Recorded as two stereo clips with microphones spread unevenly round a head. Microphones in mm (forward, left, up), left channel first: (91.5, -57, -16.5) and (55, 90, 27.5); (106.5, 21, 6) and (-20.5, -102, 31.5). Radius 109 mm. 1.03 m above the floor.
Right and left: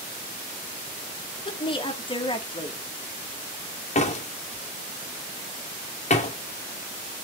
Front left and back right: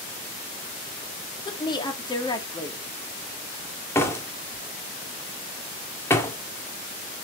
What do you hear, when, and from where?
1.4 s a woman speaking: 20° right, 2.0 m
4.0 s a door slam: 30° right, 2 m